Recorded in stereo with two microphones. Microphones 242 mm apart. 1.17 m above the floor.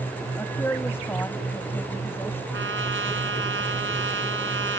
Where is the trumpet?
55° right (ahead or behind).